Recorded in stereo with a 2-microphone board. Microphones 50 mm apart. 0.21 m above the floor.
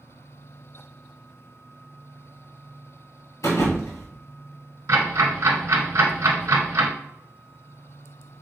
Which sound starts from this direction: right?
Ticking, at 4.9 s.